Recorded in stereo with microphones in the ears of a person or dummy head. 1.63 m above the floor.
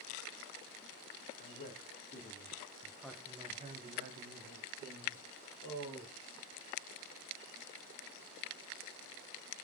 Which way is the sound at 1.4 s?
45° left (ahead or behind).